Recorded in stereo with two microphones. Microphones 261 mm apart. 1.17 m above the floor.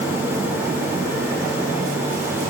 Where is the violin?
No violin in this recording.